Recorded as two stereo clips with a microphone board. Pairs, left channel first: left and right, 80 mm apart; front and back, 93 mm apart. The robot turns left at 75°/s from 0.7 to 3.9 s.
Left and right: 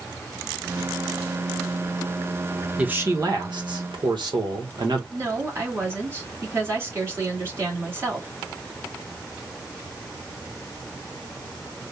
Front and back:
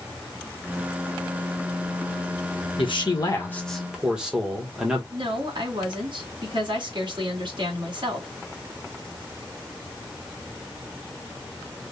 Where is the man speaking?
15° right, 1.5 m; by 5.0 s 100° right, 1.5 m.